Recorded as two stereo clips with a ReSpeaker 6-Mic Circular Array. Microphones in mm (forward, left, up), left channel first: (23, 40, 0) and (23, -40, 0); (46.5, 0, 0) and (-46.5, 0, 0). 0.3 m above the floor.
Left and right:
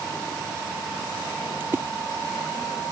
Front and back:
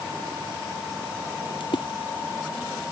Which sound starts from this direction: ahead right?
A splash, at 1.6 s.